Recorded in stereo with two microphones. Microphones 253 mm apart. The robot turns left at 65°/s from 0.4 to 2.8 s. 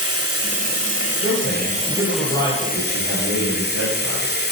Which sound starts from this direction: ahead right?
Running water, at 0.0 s.